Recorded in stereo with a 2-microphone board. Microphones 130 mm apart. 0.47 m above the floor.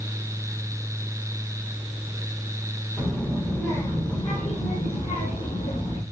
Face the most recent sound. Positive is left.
turn(degrees=70)  # may be behind; listen again after turning